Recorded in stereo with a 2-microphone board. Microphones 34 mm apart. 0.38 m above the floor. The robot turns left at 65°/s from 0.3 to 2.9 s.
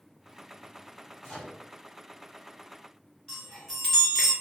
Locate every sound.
1.2 s a microwave: 5° right (ahead or behind), 1.6 m; by 1.6 s 10° left (ahead or behind), 1.6 m
3.3 s a chime: 10° left (ahead or behind), 1.3 m